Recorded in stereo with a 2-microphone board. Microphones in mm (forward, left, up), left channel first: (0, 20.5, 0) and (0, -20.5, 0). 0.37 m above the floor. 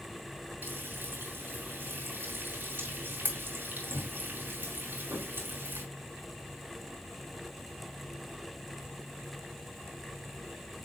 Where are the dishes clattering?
I don't hear dishes clattering.